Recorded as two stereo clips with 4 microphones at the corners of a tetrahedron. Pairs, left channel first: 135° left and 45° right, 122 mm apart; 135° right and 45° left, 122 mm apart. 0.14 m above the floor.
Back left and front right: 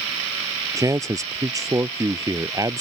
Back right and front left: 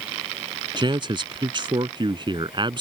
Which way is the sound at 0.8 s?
10° left.